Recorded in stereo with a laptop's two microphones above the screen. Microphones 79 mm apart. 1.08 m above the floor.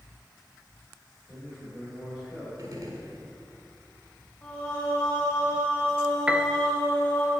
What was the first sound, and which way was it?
A man speaking, centre (ahead or behind).